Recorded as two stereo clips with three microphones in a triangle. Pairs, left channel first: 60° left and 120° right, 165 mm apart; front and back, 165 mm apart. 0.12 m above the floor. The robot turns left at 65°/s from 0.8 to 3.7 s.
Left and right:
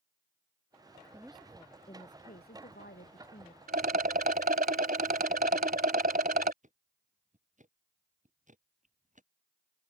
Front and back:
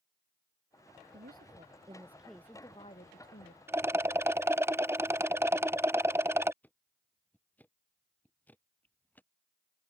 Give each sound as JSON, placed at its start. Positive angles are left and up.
{"t": 1.1, "sound": "a woman speaking", "azimuth_deg": 165}
{"t": 3.7, "sound": "a rattle", "azimuth_deg": -105}
{"t": 6.6, "sound": "ticking", "azimuth_deg": -80}